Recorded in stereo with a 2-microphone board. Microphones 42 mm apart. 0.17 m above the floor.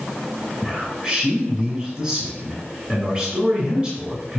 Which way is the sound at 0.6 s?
30° right (ahead or behind).